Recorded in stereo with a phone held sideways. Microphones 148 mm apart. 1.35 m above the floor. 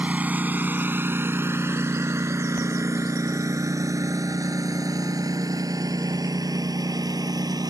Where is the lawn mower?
10° right (ahead or behind); by 7.7 s 25° right (ahead or behind).